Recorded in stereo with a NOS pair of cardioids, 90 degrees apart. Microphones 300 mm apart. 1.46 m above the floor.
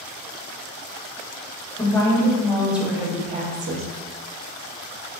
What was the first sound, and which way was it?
A woman speaking, 15° left.